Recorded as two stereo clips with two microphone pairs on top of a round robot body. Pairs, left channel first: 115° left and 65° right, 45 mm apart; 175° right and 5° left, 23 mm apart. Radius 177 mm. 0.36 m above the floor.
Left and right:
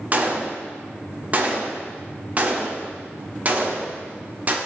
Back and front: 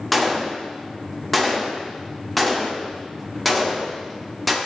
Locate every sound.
0.1 s a gunshot: 95° right, 1.5 m